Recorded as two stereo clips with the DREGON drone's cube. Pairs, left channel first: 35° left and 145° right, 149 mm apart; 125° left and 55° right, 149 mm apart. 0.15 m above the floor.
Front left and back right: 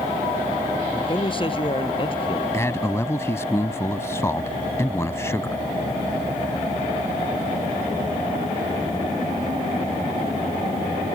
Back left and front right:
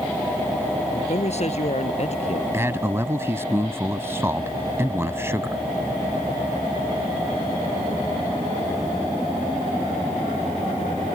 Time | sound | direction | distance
0.9 | a man speaking | 85° left | ?
2.5 | a man speaking | 10° right | ?